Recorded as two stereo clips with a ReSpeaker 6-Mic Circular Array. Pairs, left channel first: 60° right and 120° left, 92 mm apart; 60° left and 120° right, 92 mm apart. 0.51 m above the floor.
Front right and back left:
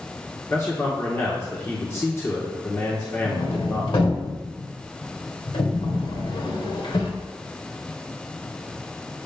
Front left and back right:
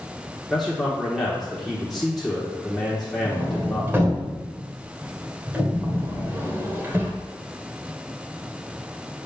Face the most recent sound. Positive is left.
turn(degrees=-55)